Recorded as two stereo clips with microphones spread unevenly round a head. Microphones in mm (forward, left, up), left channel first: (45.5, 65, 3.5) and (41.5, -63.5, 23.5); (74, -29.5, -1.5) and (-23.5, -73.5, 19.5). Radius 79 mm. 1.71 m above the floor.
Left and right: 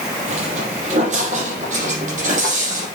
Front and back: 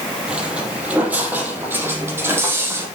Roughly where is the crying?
I don't hear crying.